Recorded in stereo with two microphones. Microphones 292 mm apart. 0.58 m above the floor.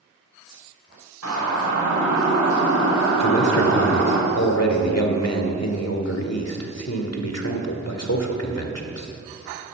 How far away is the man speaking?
About 1.9 m.